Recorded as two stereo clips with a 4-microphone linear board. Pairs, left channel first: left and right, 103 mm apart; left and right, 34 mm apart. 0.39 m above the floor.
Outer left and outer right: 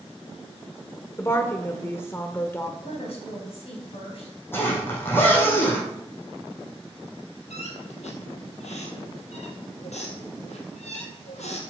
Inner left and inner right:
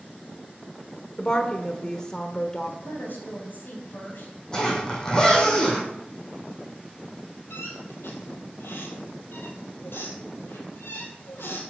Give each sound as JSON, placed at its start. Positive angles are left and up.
{"t": 1.2, "sound": "a woman speaking", "side_deg": 25, "distance_m": 0.8}
{"t": 2.8, "sound": "a woman speaking", "side_deg": 65, "distance_m": 3.0}
{"t": 4.5, "sound": "a zipper", "side_deg": 20, "distance_m": 3.5}
{"t": 7.5, "sound": "a squeak", "side_deg": 85, "distance_m": 2.5}